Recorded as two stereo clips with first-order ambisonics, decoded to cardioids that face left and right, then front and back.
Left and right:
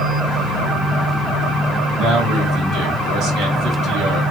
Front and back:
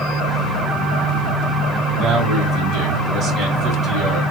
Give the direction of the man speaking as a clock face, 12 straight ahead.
4 o'clock.